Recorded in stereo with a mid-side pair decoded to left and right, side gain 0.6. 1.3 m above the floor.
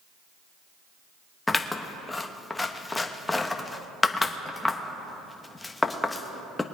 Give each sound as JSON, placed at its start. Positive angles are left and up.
{"t": 1.5, "sound": "scissors", "azimuth_deg": 15, "distance_m": 1.0}